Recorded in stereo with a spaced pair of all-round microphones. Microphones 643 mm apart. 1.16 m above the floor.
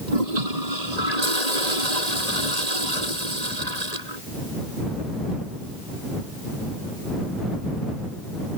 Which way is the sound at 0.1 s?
75° right (ahead or behind).